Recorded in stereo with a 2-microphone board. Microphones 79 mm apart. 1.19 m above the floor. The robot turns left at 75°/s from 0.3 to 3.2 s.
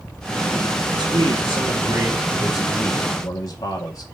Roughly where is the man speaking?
Ahead right.